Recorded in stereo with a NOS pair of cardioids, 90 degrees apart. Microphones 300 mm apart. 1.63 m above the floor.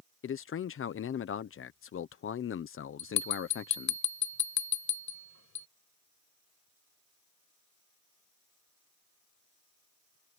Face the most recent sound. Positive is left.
turn(degrees=65)